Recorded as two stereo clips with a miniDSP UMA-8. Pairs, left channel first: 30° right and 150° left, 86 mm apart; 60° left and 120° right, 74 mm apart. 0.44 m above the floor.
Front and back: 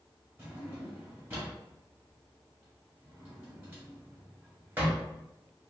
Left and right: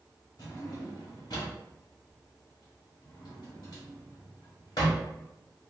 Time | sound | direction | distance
0.4 | a drawer | 85° left | 1.5 m